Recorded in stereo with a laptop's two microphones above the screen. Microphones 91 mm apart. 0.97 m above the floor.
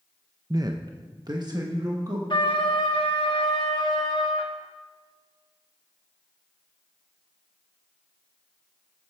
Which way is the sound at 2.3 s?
65° left (ahead or behind).